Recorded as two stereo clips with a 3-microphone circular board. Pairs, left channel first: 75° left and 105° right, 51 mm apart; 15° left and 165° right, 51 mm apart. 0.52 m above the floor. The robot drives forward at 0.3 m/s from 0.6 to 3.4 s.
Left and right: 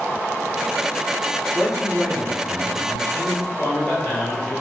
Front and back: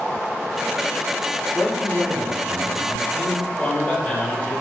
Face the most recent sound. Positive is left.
turn(degrees=65)